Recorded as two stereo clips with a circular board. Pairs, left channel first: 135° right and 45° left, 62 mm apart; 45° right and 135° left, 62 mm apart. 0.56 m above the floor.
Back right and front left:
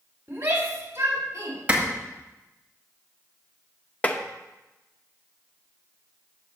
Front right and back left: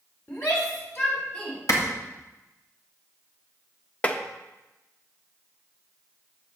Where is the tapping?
90° right, 0.7 m.